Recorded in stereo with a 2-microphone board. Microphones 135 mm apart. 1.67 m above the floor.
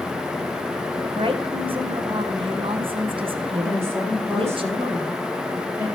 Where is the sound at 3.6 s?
20° right (ahead or behind), 3.5 m.